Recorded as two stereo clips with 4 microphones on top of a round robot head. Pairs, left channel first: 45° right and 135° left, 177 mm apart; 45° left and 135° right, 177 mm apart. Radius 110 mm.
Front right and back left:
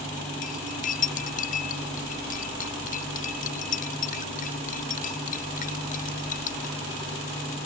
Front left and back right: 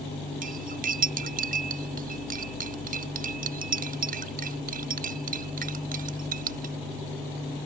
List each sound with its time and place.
0.4 s cutlery clinking: 90° right